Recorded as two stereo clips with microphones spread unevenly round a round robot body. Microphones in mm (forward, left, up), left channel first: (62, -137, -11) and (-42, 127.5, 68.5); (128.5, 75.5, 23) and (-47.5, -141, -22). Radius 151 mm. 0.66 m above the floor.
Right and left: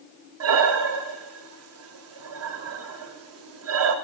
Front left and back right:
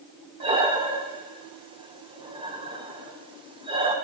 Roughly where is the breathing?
Behind.